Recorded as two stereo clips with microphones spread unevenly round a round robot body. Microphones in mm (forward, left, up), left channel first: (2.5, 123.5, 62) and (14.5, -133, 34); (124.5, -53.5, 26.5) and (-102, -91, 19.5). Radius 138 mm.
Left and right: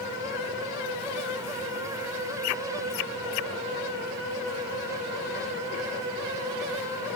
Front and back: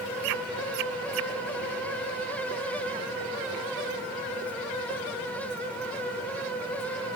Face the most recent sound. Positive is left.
No sound to turn to.